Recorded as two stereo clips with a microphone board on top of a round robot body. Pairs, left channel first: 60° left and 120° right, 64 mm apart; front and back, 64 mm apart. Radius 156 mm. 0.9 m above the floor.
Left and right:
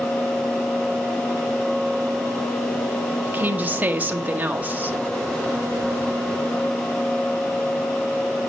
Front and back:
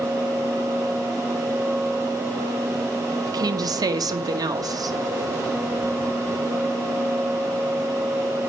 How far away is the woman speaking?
About 1.3 m.